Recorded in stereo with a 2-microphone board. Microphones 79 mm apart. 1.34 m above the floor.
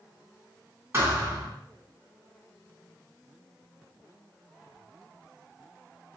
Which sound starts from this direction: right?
A thud, at 0.9 s.